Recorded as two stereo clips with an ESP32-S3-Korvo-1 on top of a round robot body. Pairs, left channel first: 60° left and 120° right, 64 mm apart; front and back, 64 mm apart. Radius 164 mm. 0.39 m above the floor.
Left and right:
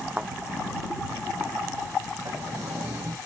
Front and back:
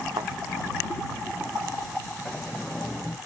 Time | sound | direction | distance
0.2 | a thud | 165° left | ?
2.2 | a sliding door | 80° right | ?